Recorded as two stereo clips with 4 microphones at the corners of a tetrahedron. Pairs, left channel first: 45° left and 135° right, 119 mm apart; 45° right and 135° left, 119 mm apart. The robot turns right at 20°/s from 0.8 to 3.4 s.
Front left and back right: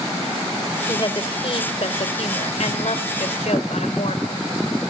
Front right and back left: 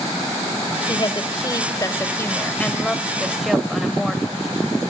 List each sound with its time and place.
0.9 s a woman speaking: straight ahead, 2.5 m; by 4.4 s 50° left, 2.5 m